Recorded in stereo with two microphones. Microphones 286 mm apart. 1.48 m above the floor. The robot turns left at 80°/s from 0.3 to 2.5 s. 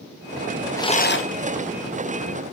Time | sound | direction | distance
0.8 | a rattle | 170° left | 1.0 m